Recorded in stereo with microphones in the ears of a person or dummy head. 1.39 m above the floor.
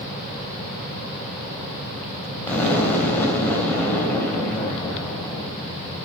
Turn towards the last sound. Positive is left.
turn(degrees=10)  # may be behind; listen again after turning